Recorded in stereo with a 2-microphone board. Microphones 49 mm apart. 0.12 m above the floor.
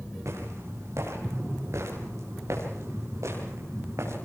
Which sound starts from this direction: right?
Footsteps, at 0.2 s.